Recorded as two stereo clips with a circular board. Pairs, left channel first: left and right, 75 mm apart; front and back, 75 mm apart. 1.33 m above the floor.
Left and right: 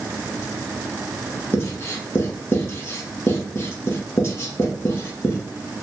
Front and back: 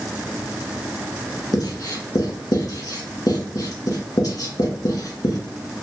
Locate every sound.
1.5 s writing: 35° left, 1.4 m